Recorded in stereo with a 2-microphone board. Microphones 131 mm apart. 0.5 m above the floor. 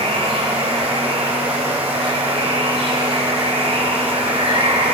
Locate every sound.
0.0 s running water: 50° right (ahead or behind), 1.8 m